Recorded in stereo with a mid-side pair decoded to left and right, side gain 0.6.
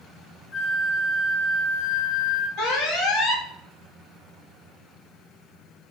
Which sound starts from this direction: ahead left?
A flute, at 0.5 s.